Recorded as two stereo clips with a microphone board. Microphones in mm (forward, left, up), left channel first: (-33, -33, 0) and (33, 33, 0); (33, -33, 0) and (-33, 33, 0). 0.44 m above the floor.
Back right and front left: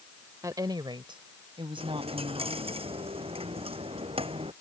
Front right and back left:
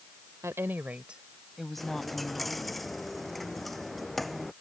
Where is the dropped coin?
45° left.